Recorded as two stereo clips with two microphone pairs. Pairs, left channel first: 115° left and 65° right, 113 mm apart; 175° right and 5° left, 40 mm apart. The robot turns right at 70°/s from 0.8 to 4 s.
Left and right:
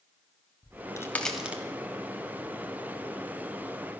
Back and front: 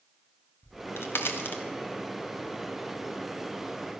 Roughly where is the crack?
Behind.